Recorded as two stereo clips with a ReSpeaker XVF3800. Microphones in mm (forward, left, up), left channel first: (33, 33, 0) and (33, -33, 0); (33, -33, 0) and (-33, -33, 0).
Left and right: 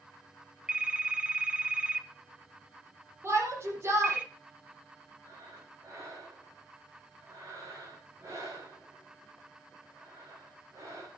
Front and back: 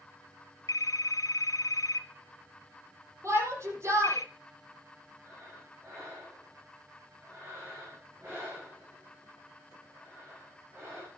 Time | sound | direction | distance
0.7 | a phone ringing | 20° right | 1.9 m
3.2 | a shout | 135° right | 8 m
5.2 | breathing | 130° right | 8 m